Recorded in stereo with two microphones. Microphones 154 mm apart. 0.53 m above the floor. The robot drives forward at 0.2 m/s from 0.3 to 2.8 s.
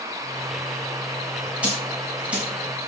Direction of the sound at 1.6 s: 5° right (ahead or behind).